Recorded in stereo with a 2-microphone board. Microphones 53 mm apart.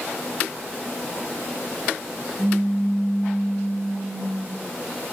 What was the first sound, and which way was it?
A pop, 75° right (ahead or behind).